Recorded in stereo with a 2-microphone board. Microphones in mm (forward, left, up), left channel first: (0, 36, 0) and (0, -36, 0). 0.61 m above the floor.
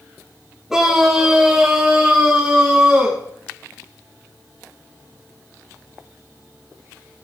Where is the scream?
5° right (ahead or behind), 3.5 m; by 3.2 s 10° right (ahead or behind), 6 m.